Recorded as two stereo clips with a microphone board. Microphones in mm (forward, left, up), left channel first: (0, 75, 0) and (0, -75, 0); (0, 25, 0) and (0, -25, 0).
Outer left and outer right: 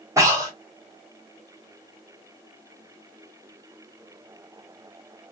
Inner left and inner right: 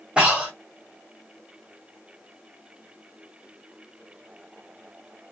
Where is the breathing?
20° right (ahead or behind), 1.7 m.